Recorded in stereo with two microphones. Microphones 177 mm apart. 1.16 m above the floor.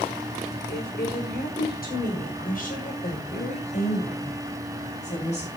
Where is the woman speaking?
65° left (ahead or behind), 5 m; by 5.5 s 40° left (ahead or behind), 9 m.